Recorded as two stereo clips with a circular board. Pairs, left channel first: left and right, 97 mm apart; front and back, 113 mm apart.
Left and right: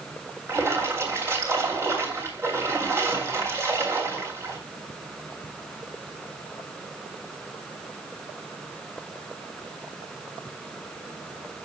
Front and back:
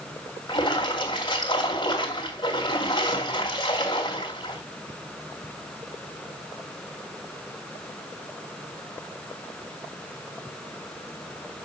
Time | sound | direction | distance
0.5 | a splash | 35° right | 2.5 m